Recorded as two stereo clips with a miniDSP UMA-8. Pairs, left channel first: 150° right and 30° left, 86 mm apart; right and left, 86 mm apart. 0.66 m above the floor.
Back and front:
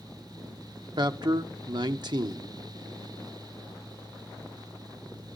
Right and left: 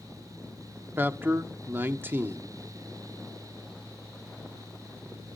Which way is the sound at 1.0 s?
30° left.